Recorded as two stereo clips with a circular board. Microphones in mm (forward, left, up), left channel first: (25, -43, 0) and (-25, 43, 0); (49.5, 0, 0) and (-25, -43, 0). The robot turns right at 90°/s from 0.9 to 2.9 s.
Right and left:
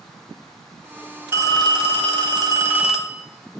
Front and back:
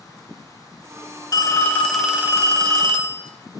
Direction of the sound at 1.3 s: 60° left.